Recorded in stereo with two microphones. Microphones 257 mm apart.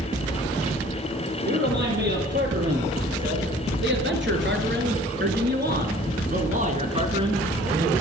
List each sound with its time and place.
1.4 s a man speaking: 45° right (ahead or behind), 4.5 m; by 7.9 s 10° right (ahead or behind), 2 m